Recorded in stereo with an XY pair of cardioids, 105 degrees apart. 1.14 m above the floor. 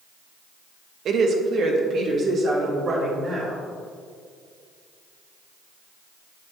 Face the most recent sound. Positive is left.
turn(degrees=-50)